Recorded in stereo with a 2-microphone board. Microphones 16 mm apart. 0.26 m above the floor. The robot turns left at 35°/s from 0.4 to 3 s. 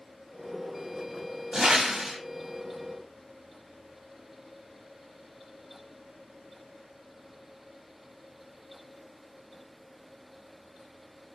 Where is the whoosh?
40° right (ahead or behind), 0.6 m; by 2.2 s 50° right (ahead or behind), 0.6 m.